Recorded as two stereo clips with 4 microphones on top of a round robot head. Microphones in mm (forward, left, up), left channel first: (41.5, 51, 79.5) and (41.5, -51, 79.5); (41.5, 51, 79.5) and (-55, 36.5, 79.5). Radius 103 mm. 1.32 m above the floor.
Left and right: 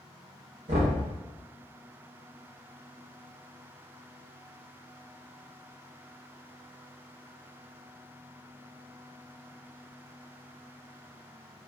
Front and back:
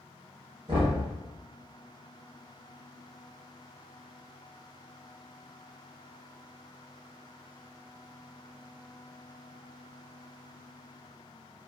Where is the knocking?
120° right, 0.7 m.